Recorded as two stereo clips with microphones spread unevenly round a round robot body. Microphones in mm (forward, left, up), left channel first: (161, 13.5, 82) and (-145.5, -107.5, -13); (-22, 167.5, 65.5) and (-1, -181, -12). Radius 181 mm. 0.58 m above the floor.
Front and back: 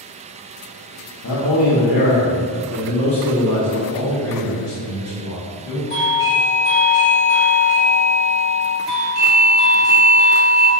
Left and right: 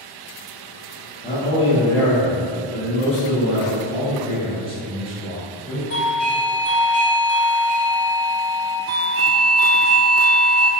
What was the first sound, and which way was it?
A man speaking, 30° left.